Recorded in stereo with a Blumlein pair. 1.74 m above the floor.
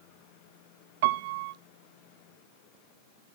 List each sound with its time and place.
1.0 s a piano: 50° right, 0.8 m